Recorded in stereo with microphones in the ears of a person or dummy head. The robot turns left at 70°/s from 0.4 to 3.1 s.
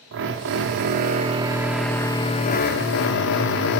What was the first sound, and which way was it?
A drill, 80° right.